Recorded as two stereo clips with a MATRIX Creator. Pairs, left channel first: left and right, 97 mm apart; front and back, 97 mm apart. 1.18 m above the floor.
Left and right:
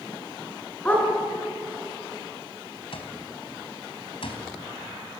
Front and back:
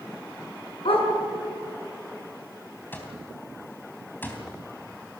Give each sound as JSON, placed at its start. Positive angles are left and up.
{"t": 0.8, "sound": "a dog barking", "azimuth_deg": 15, "distance_m": 4.0}
{"t": 2.9, "sound": "an alarm clock", "azimuth_deg": 70, "distance_m": 3.5}